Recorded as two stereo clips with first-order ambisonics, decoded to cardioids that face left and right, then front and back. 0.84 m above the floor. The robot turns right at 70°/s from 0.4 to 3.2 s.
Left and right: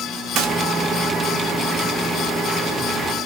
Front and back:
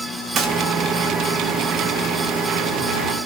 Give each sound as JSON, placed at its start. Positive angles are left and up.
{"t": 0.3, "sound": "a gunshot", "azimuth_deg": -125, "distance_m": 0.7}